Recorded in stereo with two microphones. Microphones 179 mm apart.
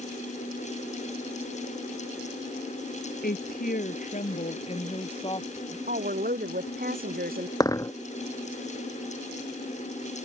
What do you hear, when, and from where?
3.2 s a woman speaking: 55° left (ahead or behind); by 5.8 s 20° left (ahead or behind)
5.9 s a woman speaking: 55° right (ahead or behind)
7.6 s a dropped coin: 20° left (ahead or behind)